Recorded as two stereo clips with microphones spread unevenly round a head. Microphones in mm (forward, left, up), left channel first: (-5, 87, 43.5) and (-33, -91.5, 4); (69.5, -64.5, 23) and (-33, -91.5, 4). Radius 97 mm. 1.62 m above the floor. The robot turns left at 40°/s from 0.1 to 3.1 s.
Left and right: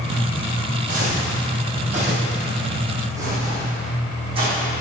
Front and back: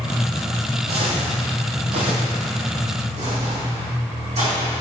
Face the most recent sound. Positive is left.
turn(degrees=-160)